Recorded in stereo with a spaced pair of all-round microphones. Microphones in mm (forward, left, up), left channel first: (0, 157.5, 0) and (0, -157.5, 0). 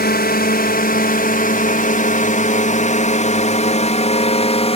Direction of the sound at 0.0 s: 30° left (ahead or behind).